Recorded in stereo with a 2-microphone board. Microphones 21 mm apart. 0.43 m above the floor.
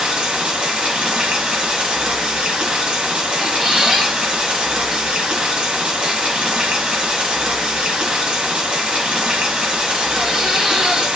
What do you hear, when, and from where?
0.0 s running water: 60° right (ahead or behind), 1.2 m
3.4 s a squeak: 25° right (ahead or behind), 2 m